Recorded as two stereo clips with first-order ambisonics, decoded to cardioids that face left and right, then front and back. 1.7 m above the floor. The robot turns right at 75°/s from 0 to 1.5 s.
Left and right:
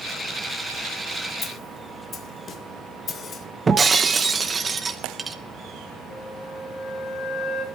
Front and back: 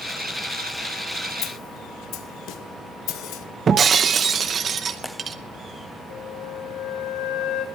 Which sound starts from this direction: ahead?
A snare drum, at 1.4 s.